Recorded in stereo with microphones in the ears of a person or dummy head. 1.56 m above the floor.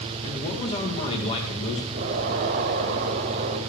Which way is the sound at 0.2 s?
30° left (ahead or behind).